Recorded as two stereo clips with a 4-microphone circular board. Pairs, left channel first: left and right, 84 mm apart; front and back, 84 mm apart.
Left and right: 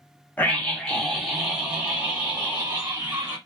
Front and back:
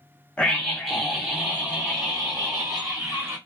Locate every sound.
0.4 s a scream: 60° left, 1.1 m; by 3.4 s 140° right, 1.6 m